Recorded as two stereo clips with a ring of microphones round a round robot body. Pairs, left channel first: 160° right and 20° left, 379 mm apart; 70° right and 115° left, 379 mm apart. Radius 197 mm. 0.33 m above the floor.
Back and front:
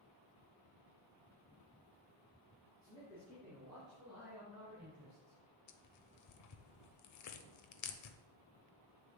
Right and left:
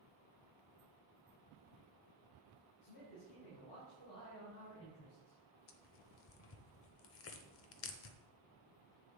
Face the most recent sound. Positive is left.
turn(degrees=-120)